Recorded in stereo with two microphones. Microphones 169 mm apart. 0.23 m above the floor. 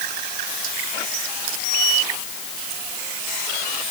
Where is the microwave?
I don't hear a microwave.